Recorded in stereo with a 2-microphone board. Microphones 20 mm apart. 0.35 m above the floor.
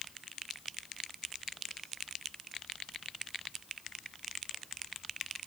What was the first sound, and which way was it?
Only background noise.